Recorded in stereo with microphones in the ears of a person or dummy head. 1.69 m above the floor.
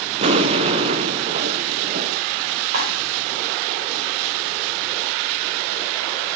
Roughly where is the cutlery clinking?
Right.